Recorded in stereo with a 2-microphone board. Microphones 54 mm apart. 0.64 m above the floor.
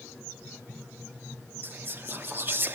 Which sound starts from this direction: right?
Whispering, at 1.6 s.